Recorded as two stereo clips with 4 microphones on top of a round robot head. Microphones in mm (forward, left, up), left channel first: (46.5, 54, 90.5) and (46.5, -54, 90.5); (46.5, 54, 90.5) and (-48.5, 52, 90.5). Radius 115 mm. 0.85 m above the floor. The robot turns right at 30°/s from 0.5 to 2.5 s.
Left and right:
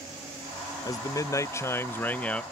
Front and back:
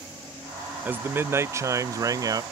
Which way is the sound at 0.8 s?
115° left.